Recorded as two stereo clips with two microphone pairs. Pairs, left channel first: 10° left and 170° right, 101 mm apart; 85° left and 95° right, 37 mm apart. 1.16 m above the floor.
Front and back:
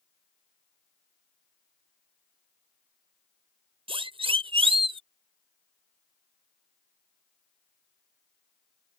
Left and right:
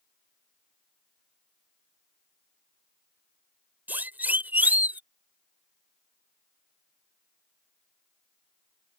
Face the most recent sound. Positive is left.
turn(degrees=-140)